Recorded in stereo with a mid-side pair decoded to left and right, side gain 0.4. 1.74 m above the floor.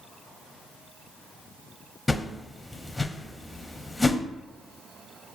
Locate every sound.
2.1 s a whoosh: 20° left, 0.6 m